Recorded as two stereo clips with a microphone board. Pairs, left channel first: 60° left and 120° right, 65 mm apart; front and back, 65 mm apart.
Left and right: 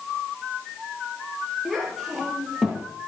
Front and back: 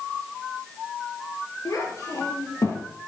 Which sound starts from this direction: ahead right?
A child speaking, at 1.6 s.